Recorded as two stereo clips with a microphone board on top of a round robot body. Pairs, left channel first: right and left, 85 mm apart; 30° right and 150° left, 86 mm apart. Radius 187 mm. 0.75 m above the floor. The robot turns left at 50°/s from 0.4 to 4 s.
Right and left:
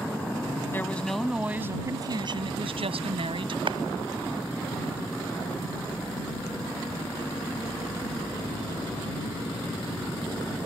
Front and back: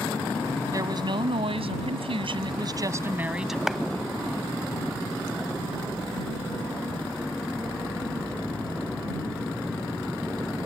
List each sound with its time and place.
0.7 s a woman speaking: 155° right; by 3.6 s 60° left
3.7 s a clap: 65° left; by 3.8 s 60° left